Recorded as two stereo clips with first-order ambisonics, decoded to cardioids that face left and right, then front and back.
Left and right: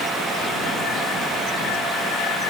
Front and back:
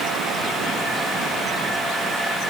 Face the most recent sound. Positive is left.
No sound to turn to.